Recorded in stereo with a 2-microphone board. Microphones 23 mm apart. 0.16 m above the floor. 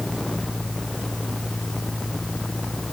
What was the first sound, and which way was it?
Only background noise.